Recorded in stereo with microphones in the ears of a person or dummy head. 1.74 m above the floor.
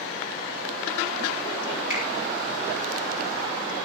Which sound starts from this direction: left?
A finger snap, at 1.9 s.